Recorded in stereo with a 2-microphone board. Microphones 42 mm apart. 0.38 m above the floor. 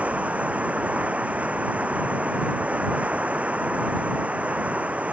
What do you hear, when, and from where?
0.0 s running water: 35° right (ahead or behind)